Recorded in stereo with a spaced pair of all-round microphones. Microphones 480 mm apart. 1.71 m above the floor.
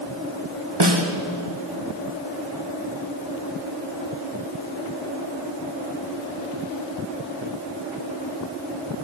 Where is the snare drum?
55° right (ahead or behind), 1.2 m.